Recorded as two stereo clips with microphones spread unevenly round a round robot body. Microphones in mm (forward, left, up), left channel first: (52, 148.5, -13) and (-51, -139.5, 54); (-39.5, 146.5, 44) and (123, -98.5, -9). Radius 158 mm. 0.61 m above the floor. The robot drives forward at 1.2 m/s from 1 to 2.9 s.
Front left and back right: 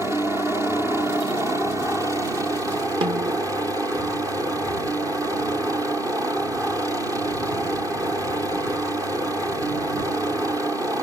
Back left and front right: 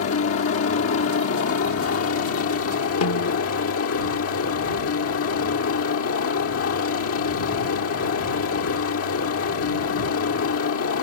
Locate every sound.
0.0 s a helicopter: 160° left; by 11.0 s 165° left
3.0 s a snare drum: 170° left